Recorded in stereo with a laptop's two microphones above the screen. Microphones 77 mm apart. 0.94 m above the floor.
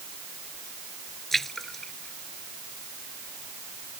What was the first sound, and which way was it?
A splash, 5° left (ahead or behind).